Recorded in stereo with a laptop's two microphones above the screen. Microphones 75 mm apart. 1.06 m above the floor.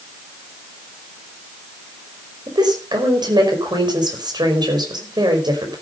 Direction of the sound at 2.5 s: 70° right (ahead or behind).